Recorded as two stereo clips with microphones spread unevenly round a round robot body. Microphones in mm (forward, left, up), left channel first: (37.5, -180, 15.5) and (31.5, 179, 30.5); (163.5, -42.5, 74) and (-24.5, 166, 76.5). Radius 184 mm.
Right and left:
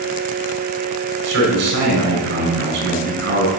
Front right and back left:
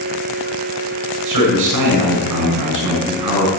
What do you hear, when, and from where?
1.2 s a man speaking: 150° left, 6.5 m